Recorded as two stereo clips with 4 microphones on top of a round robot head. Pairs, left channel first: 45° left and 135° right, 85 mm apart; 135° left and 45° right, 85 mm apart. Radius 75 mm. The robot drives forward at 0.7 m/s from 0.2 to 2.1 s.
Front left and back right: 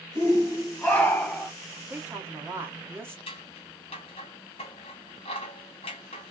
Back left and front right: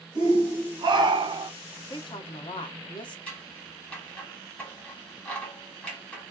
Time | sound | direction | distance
0.1 | a shout | 15° right | 1.8 m
1.9 | a woman speaking | 155° left | 0.8 m
3.3 | scissors | 60° left | 0.7 m